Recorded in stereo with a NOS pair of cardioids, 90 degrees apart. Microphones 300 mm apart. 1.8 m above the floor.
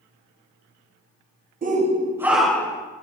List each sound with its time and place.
1.6 s a shout: 30° right, 1.5 m; by 2.9 s 15° left, 1.7 m